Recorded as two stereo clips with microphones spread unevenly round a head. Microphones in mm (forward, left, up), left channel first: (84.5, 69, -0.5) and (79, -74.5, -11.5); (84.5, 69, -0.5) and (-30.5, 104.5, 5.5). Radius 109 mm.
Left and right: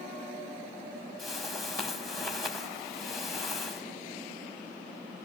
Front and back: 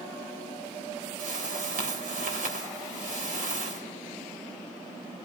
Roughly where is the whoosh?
Behind.